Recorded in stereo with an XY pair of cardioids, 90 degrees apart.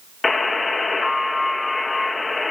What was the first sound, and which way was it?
A buzzer, 35° left.